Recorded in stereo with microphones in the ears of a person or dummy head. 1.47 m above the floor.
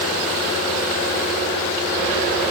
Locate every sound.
Only background noise.